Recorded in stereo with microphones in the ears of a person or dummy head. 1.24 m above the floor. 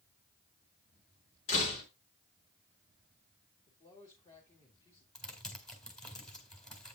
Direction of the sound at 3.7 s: 30° left (ahead or behind).